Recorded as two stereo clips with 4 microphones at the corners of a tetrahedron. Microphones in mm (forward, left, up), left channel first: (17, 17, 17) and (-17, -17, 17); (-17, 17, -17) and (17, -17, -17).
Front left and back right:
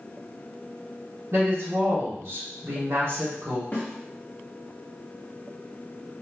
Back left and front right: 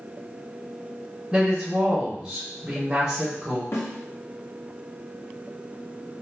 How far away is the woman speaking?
About 1.6 m.